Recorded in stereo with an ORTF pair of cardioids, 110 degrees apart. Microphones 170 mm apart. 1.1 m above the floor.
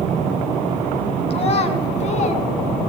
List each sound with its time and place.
1.3 s a child speaking: 35° left, 6.5 m; by 2.5 s 45° left, 6.5 m